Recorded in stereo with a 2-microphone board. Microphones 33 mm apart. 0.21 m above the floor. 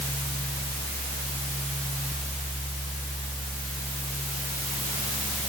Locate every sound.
Only background noise.